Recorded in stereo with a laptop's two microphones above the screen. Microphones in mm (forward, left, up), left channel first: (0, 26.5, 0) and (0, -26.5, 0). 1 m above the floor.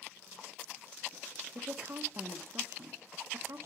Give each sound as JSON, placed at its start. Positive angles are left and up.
{"t": 1.6, "sound": "a woman speaking", "side_deg": -50, "distance_m": 0.6}